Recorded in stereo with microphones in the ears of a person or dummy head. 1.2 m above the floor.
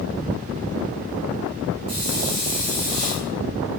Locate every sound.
1.9 s a hiss: 45° right (ahead or behind), 1.4 m